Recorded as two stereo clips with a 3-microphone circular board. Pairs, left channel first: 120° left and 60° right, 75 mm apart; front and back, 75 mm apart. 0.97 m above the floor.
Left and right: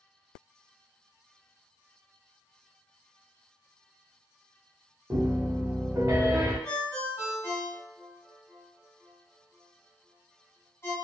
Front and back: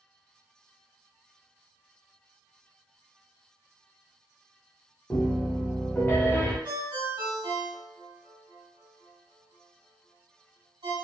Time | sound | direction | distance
5.1 | a piano | 55° right | 0.8 m
6.7 | a ringtone | straight behind | 1.7 m